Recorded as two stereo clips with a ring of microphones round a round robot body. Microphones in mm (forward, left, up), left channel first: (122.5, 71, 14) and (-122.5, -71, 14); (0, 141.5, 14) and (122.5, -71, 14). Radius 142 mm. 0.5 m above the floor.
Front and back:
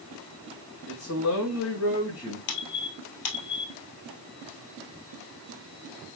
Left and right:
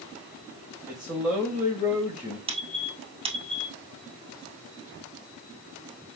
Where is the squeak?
5° left, 1.8 m.